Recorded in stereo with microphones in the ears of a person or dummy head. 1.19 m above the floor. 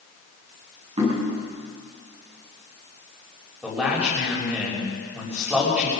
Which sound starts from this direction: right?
Knocking, at 1.0 s.